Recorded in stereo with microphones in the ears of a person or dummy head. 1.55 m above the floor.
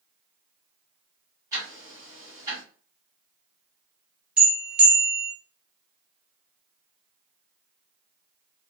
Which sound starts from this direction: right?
Ticking, at 1.5 s.